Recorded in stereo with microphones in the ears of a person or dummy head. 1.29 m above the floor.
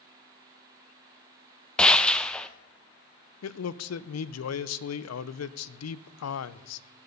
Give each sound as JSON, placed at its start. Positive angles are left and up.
{"t": 1.8, "sound": "a gunshot", "side_deg": 0, "distance_m": 0.6}
{"t": 3.4, "sound": "a man speaking", "side_deg": 80, "distance_m": 0.6}